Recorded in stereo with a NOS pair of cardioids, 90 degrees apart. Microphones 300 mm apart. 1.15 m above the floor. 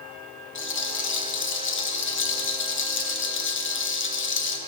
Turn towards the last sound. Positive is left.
turn(degrees=40)